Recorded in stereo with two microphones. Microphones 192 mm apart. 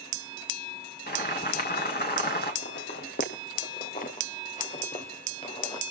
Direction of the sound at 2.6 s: 60° left (ahead or behind).